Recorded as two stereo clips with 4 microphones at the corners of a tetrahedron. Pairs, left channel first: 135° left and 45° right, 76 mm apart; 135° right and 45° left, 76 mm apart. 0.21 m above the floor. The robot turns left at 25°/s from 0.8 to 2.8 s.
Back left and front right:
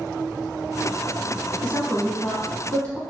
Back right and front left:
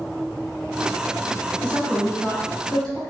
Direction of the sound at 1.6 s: 165° right.